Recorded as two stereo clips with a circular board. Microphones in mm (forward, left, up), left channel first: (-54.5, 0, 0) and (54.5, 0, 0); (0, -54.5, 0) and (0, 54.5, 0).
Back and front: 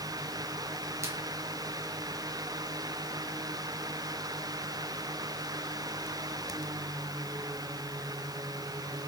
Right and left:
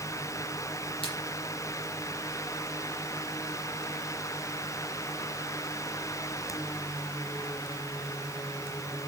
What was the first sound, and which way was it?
A splash, 60° right.